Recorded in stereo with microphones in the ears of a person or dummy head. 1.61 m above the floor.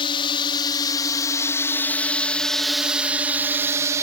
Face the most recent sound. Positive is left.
turn(degrees=-20)  # may be behind; listen again after turning